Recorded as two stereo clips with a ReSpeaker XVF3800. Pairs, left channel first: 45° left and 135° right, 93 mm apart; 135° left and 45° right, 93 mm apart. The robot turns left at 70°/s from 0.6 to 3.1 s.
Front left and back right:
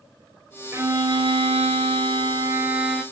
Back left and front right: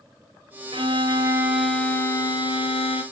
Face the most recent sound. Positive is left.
turn(degrees=125)